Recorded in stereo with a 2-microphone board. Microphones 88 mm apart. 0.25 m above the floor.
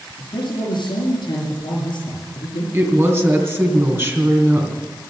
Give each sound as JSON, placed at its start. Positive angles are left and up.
{"t": 0.2, "sound": "a man speaking", "side_deg": 65, "distance_m": 4.5}
{"t": 2.7, "sound": "a woman speaking", "side_deg": -25, "distance_m": 2.5}